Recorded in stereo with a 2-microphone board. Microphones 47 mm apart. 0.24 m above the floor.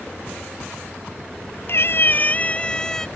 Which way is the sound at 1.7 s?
60° left (ahead or behind).